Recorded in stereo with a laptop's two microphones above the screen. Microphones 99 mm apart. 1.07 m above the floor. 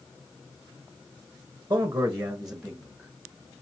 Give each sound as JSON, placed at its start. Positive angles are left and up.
{"t": 1.7, "sound": "a man speaking", "side_deg": -25, "distance_m": 0.7}